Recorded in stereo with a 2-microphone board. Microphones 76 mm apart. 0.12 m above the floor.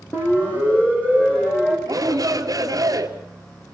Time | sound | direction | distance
0.1 | a siren | 30° left (ahead or behind) | 6 m
1.9 | a shout | 60° right (ahead or behind) | 2.5 m